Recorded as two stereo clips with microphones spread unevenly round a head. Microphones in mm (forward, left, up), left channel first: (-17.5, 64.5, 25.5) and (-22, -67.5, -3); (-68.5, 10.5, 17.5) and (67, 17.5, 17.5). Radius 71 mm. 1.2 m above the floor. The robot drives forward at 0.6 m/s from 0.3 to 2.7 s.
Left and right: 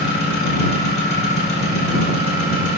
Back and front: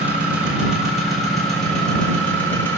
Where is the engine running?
85° left, 3.5 m; by 2.8 s 105° left, 4 m.